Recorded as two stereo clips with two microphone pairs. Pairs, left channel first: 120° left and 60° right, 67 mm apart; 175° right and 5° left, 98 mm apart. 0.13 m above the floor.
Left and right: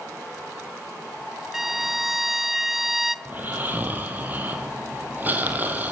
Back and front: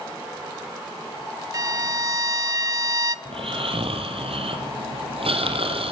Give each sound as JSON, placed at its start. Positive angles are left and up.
{"t": 1.5, "sound": "a violin", "azimuth_deg": 20, "distance_m": 0.7}
{"t": 3.2, "sound": "snoring", "azimuth_deg": 0, "distance_m": 4.5}